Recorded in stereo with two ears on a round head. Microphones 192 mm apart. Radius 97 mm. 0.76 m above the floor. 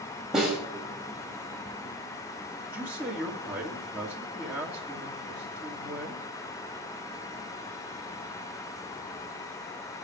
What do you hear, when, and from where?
0.3 s a snare drum: centre (ahead or behind), 5 m
2.6 s a man speaking: 15° right (ahead or behind), 1.7 m